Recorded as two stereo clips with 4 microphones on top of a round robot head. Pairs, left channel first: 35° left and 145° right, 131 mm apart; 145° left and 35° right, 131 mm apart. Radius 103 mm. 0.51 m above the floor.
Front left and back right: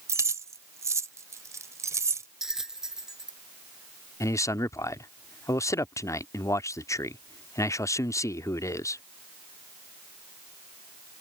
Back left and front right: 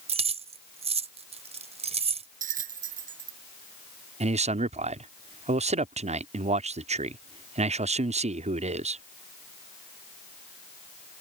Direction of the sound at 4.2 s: 25° right.